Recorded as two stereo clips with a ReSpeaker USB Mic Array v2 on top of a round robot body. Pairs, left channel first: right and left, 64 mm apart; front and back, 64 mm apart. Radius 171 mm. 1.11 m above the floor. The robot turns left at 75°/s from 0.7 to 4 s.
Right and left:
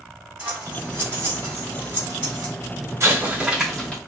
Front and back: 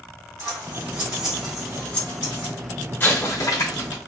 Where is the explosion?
50° left, 1.1 m; by 4.0 s 20° right, 1.1 m.